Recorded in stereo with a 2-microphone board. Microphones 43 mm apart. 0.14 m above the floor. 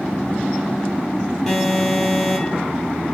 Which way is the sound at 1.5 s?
5° left (ahead or behind).